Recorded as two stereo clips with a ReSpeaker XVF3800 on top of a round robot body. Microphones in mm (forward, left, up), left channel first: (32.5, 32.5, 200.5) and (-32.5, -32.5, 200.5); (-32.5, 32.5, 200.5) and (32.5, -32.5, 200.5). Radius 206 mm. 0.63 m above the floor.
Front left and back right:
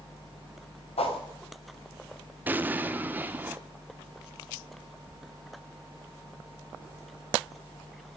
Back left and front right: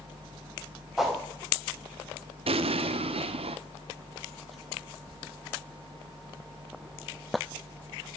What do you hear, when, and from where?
1.0 s a whoosh: 40° left, 3 m
2.5 s an explosion: 65° right, 0.7 m